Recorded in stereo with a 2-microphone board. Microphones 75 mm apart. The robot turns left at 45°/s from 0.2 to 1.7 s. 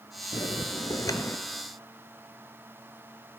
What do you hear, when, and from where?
0.3 s a bell: 85° left, 0.9 m; by 1.4 s 35° left, 0.9 m